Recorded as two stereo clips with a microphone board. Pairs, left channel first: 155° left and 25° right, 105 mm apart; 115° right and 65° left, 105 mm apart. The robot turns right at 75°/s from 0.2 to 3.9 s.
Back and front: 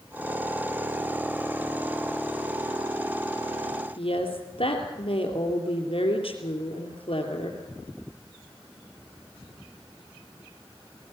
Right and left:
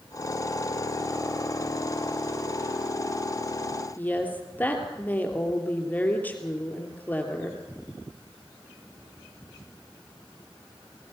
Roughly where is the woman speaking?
Behind.